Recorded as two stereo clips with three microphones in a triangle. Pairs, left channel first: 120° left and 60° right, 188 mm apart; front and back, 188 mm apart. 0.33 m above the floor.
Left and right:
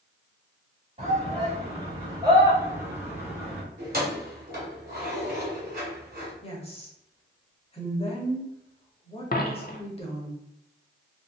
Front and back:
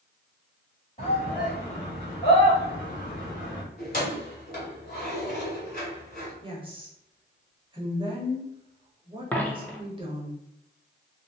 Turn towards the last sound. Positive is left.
turn(degrees=80)